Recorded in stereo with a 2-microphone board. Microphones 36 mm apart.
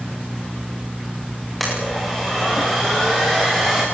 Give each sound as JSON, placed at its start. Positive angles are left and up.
{"t": 1.6, "sound": "a blender", "side_deg": 5, "distance_m": 10.0}